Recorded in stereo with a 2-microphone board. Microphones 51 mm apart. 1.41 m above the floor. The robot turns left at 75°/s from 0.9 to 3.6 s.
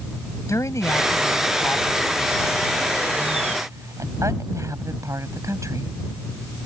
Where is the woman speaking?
105° left; by 5.9 s 95° right.